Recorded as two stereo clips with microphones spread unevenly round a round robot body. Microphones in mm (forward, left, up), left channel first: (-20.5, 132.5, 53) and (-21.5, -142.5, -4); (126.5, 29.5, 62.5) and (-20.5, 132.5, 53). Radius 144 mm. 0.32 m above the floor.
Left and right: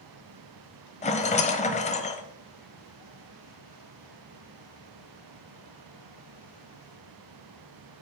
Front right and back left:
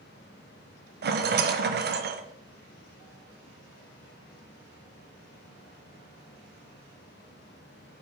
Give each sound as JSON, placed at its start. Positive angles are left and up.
{"t": 1.0, "sound": "a rattle", "azimuth_deg": 160, "distance_m": 0.9}